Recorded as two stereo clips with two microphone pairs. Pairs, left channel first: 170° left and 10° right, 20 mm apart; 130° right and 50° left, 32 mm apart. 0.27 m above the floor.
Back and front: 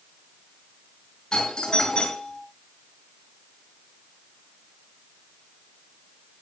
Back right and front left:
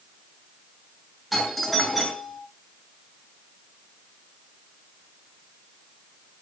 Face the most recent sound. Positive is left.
turn(degrees=140)